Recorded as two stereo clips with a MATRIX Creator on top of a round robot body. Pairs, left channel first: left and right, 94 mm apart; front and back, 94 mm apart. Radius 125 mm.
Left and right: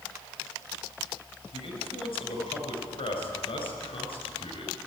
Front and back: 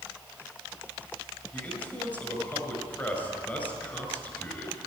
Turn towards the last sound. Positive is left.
turn(degrees=70)